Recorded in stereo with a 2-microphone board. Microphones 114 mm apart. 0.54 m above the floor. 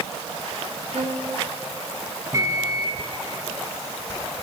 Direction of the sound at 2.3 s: 25° right (ahead or behind).